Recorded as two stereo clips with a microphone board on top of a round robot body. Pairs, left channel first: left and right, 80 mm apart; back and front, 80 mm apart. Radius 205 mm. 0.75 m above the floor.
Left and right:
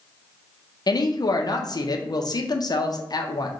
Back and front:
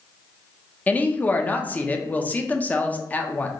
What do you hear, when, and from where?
0.9 s a woman speaking: 115° left, 0.8 m